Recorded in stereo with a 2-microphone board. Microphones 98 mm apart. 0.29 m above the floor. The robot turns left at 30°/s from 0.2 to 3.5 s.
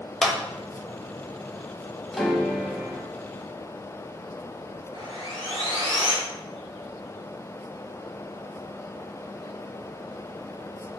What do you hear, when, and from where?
0.2 s a clap: 5° left (ahead or behind), 0.7 m; by 0.3 s 10° left (ahead or behind), 0.7 m
2.1 s a piano: 5° left (ahead or behind), 0.8 m; by 3.1 s 20° right (ahead or behind), 0.8 m
4.9 s sawing: 55° right (ahead or behind), 1.8 m